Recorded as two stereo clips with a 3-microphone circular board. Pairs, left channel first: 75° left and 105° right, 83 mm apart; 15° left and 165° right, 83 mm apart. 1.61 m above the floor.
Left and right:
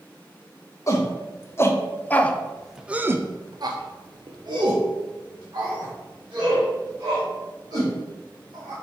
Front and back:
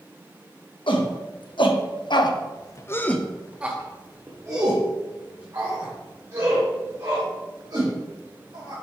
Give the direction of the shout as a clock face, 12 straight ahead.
11 o'clock.